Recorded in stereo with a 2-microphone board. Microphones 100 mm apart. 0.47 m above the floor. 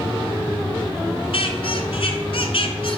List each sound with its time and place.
1.3 s a squeak: 70° left (ahead or behind), 1.3 m